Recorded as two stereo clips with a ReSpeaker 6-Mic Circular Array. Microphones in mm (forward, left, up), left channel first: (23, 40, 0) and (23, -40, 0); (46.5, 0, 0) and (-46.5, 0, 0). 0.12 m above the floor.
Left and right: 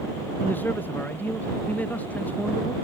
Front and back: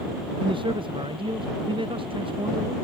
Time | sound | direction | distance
0.4 | a man speaking | 155° left | ?